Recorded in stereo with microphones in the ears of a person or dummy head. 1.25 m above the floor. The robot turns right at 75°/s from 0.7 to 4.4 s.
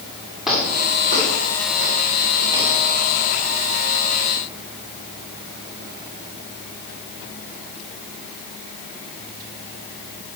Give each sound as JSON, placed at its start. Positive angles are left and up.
{"t": 0.5, "sound": "footsteps", "side_deg": -5, "distance_m": 7.0}